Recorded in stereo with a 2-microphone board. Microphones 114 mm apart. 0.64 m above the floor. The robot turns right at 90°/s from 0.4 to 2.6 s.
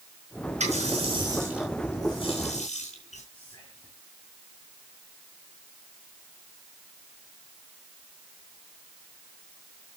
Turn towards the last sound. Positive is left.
turn(degrees=35)  # may be behind; listen again after turning